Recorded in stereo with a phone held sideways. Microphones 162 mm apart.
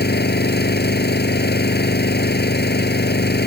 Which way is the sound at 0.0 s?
85° left.